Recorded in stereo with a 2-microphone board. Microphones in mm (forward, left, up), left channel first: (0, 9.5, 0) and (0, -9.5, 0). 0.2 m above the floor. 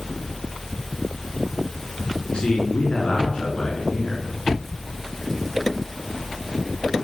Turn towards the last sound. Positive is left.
turn(degrees=60)  # may be behind; listen again after turning